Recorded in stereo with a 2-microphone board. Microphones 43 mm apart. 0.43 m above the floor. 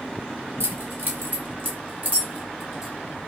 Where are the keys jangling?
65° right (ahead or behind), 1.2 m; by 2.9 s 25° right (ahead or behind), 1.5 m.